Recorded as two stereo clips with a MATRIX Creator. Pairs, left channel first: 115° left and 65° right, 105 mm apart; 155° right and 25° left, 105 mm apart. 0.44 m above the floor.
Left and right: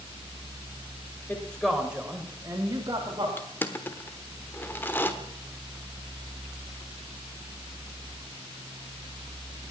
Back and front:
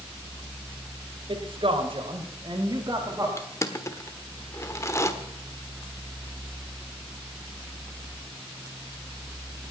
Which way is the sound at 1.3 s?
40° left.